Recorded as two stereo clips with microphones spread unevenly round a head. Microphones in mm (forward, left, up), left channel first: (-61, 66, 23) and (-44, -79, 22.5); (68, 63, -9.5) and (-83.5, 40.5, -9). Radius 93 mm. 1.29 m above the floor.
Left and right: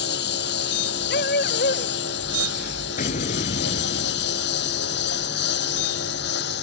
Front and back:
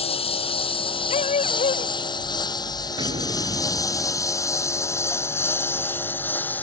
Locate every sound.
0.0 s a lawn mower: 60° left; by 6.6 s 90° left
1.1 s a dog barking: 55° left
3.0 s an explosion: 130° left